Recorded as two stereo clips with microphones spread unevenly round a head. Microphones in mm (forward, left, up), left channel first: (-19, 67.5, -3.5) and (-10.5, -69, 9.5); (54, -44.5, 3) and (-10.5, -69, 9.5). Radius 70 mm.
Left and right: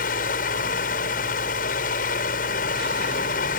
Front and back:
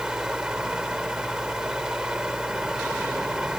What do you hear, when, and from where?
0.0 s a fan: 115° left